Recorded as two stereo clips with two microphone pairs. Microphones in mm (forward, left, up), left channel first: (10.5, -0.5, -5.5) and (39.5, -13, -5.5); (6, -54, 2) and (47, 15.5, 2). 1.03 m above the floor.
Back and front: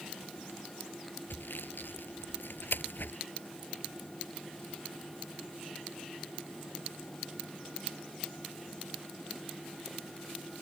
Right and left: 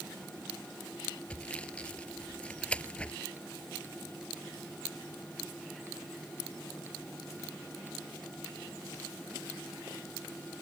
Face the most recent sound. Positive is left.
turn(degrees=160)